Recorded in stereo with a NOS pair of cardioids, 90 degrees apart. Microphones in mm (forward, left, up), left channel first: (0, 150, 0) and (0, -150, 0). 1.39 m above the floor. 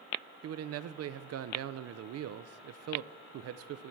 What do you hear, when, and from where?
0.4 s a man speaking: 55° right, 0.5 m